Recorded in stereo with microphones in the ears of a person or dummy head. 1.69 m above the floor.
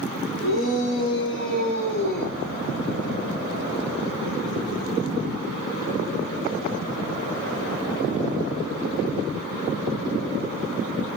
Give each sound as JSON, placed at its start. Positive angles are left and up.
{"t": 0.4, "sound": "a shout", "side_deg": 70, "distance_m": 5.0}